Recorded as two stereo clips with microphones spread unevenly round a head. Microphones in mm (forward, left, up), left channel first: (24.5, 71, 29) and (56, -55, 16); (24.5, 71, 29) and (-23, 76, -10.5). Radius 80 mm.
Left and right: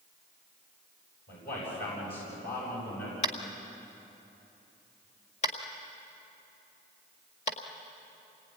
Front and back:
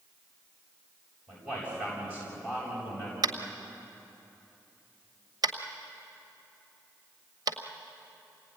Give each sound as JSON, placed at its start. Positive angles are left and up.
{"t": 1.3, "sound": "a man speaking", "azimuth_deg": 105, "distance_m": 8.5}
{"t": 3.2, "sound": "tapping", "azimuth_deg": 150, "distance_m": 1.7}